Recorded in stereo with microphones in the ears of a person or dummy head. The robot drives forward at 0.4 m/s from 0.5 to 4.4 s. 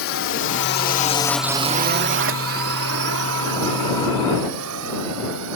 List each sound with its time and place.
0.0 s a drone: 65° left (ahead or behind); by 5.6 s 85° right